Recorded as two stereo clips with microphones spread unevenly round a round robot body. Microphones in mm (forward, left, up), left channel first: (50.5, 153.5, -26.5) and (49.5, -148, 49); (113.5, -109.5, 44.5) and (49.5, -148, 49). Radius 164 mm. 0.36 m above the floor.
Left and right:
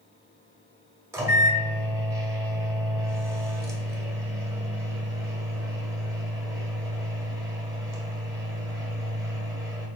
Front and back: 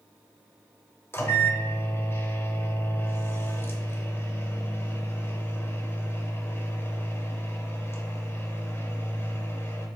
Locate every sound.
1.1 s a microwave: 5° left, 1.1 m